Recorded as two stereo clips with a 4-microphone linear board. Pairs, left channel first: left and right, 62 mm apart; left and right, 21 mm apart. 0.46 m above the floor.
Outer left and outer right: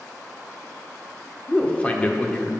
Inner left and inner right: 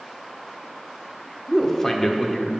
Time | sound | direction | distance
1.5 | a man speaking | 20° left (ahead or behind) | 0.8 m